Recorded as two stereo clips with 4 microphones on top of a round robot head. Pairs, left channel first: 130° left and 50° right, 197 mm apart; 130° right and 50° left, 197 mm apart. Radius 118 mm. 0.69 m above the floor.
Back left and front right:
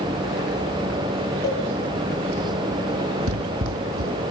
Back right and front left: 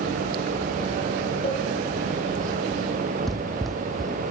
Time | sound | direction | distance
1.4 | a cowbell | 170° left | 9 m
3.3 | running footsteps | 40° right | 1.5 m